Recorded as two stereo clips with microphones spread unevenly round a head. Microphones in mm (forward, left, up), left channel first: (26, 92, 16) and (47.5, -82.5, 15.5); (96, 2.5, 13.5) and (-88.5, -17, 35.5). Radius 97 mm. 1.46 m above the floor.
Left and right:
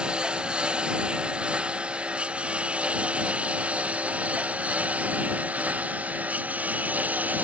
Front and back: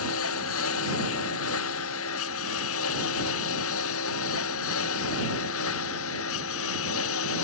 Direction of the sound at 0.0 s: Straight ahead.